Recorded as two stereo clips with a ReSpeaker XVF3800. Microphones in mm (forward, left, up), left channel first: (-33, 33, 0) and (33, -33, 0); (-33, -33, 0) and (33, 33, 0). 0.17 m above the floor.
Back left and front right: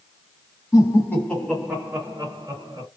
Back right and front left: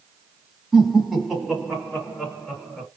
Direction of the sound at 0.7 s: 130° left.